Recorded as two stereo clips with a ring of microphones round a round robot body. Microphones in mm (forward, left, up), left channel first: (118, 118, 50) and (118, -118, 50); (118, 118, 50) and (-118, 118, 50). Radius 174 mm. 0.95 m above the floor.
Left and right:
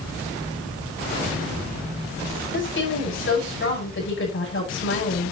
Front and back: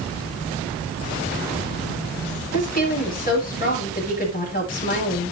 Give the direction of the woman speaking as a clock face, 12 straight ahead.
10 o'clock.